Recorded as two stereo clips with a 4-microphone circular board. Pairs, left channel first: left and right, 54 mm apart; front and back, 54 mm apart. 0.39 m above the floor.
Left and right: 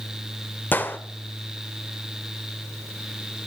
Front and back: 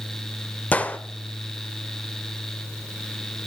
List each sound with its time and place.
0.7 s a gunshot: 50° left, 1.0 m